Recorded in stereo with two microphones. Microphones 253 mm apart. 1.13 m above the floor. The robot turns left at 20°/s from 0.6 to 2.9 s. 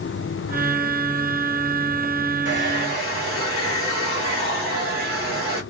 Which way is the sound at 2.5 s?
45° right (ahead or behind).